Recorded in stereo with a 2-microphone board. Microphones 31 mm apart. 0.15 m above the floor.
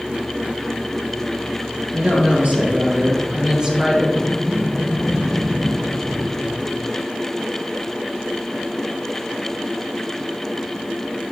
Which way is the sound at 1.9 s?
65° right (ahead or behind).